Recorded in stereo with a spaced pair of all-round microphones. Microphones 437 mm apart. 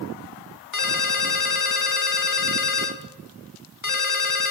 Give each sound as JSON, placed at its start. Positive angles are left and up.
{"t": 0.7, "sound": "a ringtone", "side_deg": 45, "distance_m": 1.2}